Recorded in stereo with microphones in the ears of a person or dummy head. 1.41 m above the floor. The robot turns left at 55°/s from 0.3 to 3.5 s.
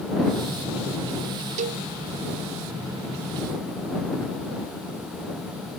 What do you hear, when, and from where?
1.6 s a cowbell: 40° right (ahead or behind); by 1.8 s 55° right (ahead or behind)